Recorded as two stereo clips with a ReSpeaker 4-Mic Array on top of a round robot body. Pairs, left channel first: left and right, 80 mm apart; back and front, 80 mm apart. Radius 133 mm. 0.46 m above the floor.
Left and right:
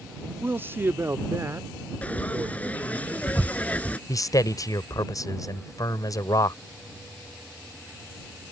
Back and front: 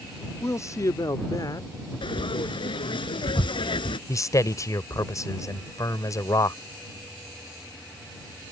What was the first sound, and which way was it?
A man speaking, 145° right.